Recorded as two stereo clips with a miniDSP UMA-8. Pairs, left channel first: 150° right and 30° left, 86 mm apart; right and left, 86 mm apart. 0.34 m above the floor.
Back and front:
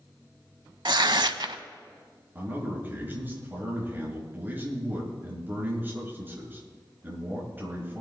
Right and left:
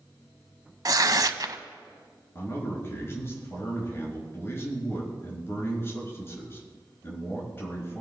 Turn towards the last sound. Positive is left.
turn(degrees=-35)